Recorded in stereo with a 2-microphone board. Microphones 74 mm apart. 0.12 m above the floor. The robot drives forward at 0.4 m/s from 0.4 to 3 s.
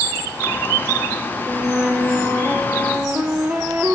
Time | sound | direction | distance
1.5 | a flute | 20° right (ahead or behind) | 0.6 m